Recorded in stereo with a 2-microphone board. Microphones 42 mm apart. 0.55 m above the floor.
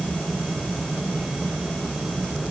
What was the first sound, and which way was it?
Only background noise.